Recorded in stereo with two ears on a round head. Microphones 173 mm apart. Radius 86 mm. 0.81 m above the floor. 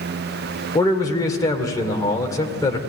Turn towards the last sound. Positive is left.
turn(degrees=20)  # may be behind; listen again after turning